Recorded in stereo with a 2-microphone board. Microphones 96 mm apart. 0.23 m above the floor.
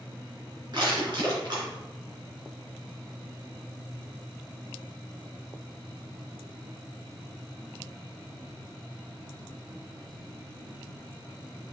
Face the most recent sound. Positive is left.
turn(degrees=-55)  # may be behind; listen again after turning